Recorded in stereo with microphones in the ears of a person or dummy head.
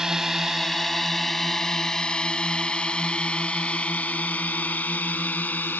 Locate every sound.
0.0 s a drone: 5° right (ahead or behind); by 5.8 s 10° left (ahead or behind)